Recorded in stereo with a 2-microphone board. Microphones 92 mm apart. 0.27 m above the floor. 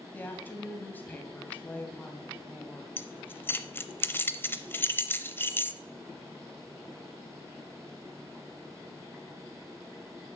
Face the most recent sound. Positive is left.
turn(degrees=20)  # may be behind; listen again after turning